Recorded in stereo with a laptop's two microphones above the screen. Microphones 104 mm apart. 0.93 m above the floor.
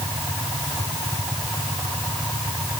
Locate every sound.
Only background noise.